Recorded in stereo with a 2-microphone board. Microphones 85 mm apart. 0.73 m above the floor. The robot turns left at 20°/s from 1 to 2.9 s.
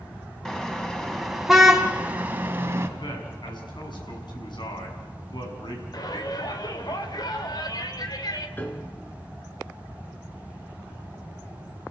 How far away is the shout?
About 2.5 m.